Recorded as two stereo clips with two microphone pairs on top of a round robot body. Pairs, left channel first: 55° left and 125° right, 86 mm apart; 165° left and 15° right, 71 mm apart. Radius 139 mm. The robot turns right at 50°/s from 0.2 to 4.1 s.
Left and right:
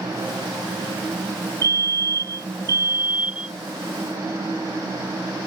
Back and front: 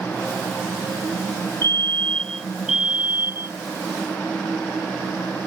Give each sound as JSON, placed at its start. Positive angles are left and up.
{"t": 1.6, "sound": "a fire alarm", "azimuth_deg": -150}